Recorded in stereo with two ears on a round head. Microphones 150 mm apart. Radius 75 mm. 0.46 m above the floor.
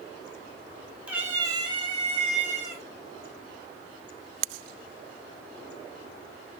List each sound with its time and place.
1.1 s a cat meowing: 10° right (ahead or behind), 1.0 m; by 2.8 s 45° right (ahead or behind), 2 m